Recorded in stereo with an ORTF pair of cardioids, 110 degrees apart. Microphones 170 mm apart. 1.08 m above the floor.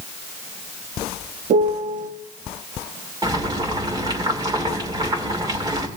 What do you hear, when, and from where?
1.5 s a piano: 50° right, 1.3 m
3.2 s boiling: 20° right, 2.5 m